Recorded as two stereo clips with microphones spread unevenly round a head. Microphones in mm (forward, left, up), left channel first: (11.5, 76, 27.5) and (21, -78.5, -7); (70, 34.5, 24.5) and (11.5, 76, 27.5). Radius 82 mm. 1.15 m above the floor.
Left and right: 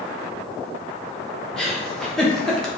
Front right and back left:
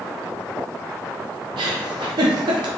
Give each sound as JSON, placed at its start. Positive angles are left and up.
{"t": 1.6, "sound": "a giggle", "azimuth_deg": 180, "distance_m": 0.8}